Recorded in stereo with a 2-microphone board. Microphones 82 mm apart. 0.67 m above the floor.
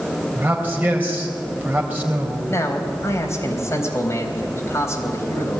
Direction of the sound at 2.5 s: 35° left (ahead or behind).